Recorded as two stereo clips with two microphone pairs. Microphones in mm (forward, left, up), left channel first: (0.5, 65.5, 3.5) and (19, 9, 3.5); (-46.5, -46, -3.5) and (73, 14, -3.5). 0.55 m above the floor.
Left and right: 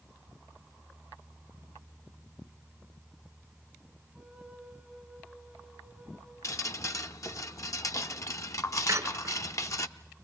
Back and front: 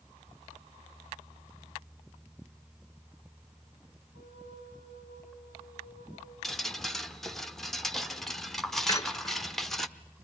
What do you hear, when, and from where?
4.1 s a flute: 25° left, 6 m
6.4 s dripping: 120° left, 0.8 m
8.9 s a squeak: 90° right, 0.9 m